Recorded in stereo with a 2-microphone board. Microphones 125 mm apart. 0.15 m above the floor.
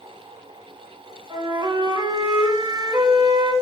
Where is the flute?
40° right (ahead or behind), 1.3 m.